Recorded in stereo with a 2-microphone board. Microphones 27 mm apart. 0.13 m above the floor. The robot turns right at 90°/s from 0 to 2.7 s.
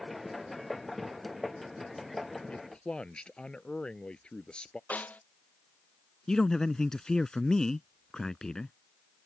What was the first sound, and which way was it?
A man speaking, 50° left (ahead or behind).